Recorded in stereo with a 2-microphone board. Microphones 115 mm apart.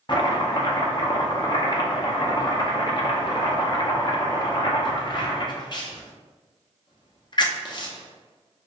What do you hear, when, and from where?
0.1 s chopping: 40° left (ahead or behind), 0.5 m